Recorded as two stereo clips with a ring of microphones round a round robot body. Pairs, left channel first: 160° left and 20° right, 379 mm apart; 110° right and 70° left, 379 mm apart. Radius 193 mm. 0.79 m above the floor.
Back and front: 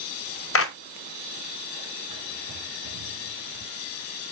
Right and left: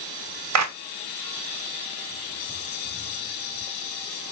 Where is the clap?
105° left, 0.8 m.